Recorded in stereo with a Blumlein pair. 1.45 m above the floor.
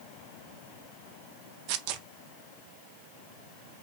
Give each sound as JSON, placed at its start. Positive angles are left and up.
{"t": 1.7, "sound": "tearing paper", "azimuth_deg": -45, "distance_m": 0.7}